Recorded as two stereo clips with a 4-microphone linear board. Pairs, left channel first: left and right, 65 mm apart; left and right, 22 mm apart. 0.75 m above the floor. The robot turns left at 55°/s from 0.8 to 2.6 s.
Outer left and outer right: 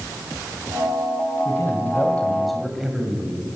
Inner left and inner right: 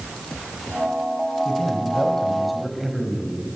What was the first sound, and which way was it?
A man speaking, 60° left.